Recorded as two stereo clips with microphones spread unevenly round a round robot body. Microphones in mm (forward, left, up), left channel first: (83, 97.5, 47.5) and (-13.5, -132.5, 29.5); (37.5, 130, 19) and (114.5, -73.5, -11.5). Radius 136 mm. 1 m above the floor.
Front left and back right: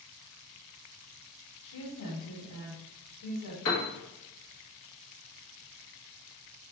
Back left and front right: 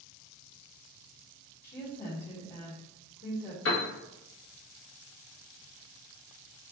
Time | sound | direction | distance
1.6 | a woman speaking | 60° left | 1.3 m
3.6 | a piano | 85° left | 0.9 m